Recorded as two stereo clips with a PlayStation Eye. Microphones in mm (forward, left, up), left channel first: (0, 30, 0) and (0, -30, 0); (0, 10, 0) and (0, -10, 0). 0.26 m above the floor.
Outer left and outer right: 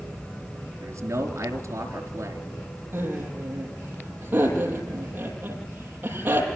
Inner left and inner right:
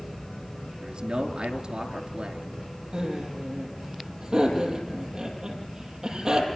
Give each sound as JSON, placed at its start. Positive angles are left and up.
{"t": 0.8, "sound": "a man speaking", "side_deg": -45, "distance_m": 4.5}
{"t": 2.9, "sound": "laughter", "side_deg": -30, "distance_m": 9.0}